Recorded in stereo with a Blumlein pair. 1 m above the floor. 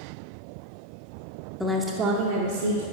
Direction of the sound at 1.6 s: 5° left.